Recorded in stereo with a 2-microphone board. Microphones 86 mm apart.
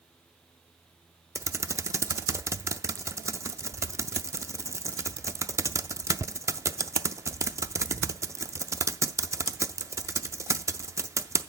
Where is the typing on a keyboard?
35° right (ahead or behind), 0.5 m.